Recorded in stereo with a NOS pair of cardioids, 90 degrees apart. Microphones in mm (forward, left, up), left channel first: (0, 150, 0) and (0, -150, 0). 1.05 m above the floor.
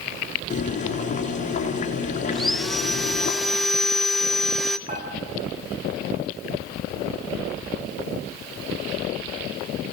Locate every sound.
0.5 s boiling: 25° left, 4.5 m
2.3 s sawing: straight ahead, 0.8 m
4.9 s dishes clattering: 25° right, 7 m